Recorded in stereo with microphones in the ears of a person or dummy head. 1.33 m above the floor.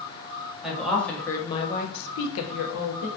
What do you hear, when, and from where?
0.6 s a woman speaking: 5° right (ahead or behind), 1.0 m; by 3.1 s 65° left (ahead or behind), 0.8 m